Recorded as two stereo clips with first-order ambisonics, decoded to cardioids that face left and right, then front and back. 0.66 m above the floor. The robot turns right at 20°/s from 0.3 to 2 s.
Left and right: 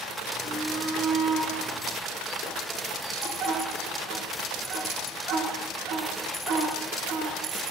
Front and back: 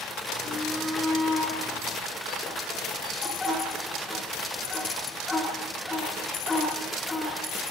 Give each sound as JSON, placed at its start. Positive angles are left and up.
{"t": 0.4, "sound": "a shout", "azimuth_deg": -120, "distance_m": 10.0}